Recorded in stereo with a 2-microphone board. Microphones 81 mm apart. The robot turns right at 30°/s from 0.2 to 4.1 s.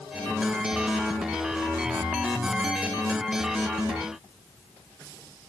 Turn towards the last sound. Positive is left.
No sound to turn to.